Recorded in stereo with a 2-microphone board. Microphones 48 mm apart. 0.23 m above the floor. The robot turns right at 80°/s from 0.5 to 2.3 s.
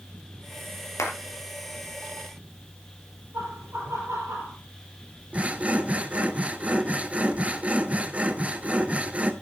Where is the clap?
75° left (ahead or behind), 3.5 m; by 1.1 s 70° left (ahead or behind), 3.5 m.